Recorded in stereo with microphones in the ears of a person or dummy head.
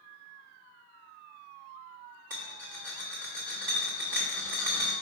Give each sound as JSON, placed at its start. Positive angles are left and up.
{"t": 2.3, "sound": "a rattle", "side_deg": -15, "distance_m": 1.1}